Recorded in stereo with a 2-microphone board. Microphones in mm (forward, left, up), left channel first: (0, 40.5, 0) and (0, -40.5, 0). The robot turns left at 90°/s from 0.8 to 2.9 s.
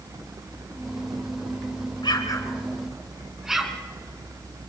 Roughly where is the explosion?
Left.